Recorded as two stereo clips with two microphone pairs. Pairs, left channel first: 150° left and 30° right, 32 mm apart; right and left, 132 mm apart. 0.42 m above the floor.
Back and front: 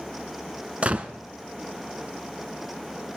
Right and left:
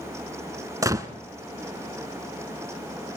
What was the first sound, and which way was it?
A gunshot, 25° left.